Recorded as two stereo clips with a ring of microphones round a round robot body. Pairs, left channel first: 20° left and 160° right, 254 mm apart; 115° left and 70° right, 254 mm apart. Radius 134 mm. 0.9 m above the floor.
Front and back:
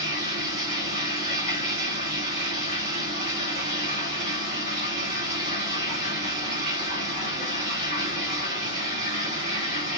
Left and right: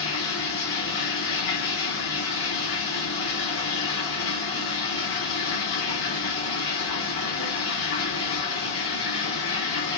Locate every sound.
0.0 s running water: 140° left, 2 m